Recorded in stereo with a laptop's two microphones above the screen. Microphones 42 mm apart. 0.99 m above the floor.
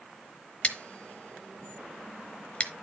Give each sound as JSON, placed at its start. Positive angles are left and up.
{"t": 0.6, "sound": "scissors", "side_deg": 30, "distance_m": 0.9}